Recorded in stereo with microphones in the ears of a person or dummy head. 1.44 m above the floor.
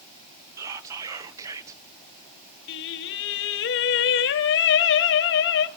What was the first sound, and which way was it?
Whispering, 15° right (ahead or behind).